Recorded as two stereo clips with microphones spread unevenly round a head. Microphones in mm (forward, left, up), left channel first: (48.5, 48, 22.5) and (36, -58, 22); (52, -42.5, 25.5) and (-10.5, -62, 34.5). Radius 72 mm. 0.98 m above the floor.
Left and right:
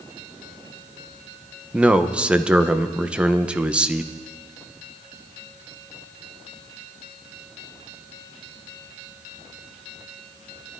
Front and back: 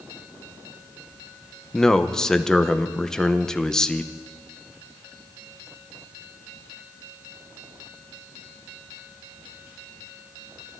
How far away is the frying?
No frying in this recording.